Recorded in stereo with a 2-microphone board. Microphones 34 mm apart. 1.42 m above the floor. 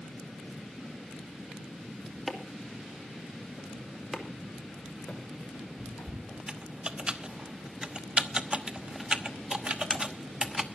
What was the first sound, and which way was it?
Chopping, centre (ahead or behind).